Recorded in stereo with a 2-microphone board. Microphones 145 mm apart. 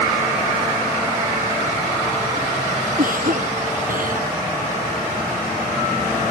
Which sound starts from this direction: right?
A cough, at 3.0 s.